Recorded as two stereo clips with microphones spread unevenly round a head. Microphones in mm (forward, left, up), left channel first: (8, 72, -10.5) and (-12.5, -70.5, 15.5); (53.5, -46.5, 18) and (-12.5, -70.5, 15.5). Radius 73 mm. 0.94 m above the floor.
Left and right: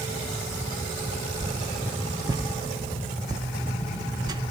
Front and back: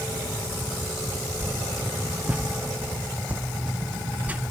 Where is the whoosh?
145° right, 0.7 m.